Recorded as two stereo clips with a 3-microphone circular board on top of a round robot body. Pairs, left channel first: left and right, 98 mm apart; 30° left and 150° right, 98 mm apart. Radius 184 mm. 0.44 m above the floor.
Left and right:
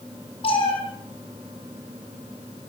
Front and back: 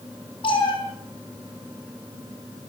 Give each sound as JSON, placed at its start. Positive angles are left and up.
{"t": 0.4, "sound": "a cat meowing", "azimuth_deg": 65, "distance_m": 6.5}